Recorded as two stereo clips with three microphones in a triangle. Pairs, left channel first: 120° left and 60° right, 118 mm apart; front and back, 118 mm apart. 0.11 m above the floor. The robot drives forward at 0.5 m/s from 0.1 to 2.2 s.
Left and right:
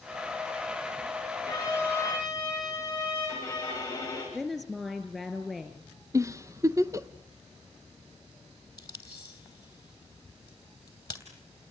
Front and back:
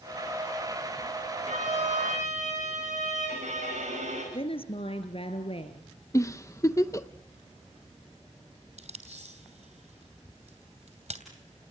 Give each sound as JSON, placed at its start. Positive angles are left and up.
{"t": 1.5, "sound": "a violin", "azimuth_deg": -170, "distance_m": 10.0}
{"t": 4.3, "sound": "a woman speaking", "azimuth_deg": 25, "distance_m": 2.5}
{"t": 6.1, "sound": "a giggle", "azimuth_deg": -30, "distance_m": 0.6}
{"t": 8.8, "sound": "tape being pulled", "azimuth_deg": 175, "distance_m": 2.5}